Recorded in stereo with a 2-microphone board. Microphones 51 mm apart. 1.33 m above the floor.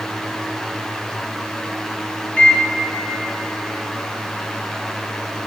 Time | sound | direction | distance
2.4 | a microwave | 30° left (ahead or behind) | 1.0 m